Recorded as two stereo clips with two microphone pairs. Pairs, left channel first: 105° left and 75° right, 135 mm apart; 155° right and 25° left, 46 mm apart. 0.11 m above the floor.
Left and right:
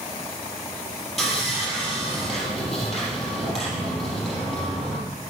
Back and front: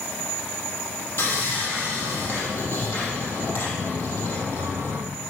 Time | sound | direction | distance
1.2 | sawing | 165° right | 4 m